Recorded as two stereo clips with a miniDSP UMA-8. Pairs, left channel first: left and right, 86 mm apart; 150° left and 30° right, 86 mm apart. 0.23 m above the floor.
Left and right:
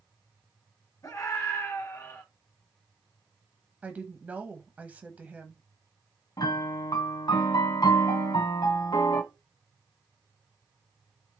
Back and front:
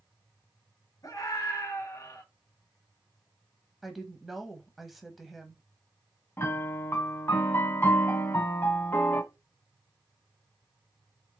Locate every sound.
1.0 s a scream: 120° left, 2 m
3.8 s a woman speaking: 115° right, 0.9 m
6.4 s a piano: 95° left, 1.0 m